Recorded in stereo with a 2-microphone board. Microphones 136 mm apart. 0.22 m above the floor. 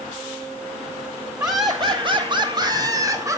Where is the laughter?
25° right (ahead or behind), 1.3 m; by 3.4 s 20° right (ahead or behind), 2.5 m.